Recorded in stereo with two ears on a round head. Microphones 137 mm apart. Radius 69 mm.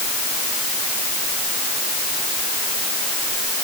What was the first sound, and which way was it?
Only background noise.